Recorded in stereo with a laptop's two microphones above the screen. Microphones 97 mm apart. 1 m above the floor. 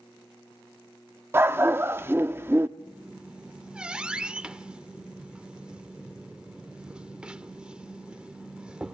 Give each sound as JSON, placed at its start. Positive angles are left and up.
{"t": 1.3, "sound": "a dog barking", "side_deg": -25, "distance_m": 0.5}
{"t": 2.8, "sound": "a squeak", "side_deg": -10, "distance_m": 0.8}